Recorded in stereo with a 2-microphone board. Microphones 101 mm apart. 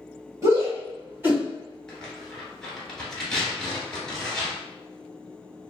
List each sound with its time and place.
0.4 s a shout: 30° right (ahead or behind), 1.7 m; by 1.4 s 20° right (ahead or behind), 1.8 m
1.9 s tearing paper: 10° left (ahead or behind), 1.3 m